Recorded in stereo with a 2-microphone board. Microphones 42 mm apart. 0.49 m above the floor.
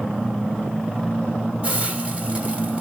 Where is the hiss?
30° right (ahead or behind), 1.6 m.